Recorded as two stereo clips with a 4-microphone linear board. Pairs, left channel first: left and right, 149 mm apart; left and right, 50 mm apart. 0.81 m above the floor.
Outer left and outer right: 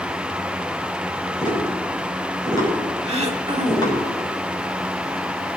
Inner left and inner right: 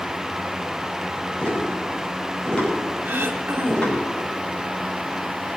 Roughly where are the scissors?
I don't hear scissors.